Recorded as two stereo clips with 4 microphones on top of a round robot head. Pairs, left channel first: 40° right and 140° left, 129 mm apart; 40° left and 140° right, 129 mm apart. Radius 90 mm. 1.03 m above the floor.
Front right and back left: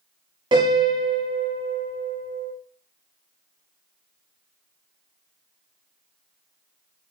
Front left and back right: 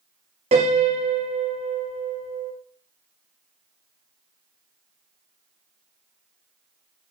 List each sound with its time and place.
0.5 s a piano: 170° right, 0.6 m